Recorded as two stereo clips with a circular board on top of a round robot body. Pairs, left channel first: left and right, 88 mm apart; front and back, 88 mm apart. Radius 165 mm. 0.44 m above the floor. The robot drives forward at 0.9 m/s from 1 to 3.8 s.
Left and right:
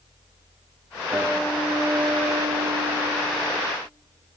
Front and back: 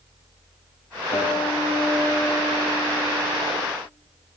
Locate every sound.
1.1 s a guitar: 20° right, 1.7 m; by 3.6 s 145° right, 1.0 m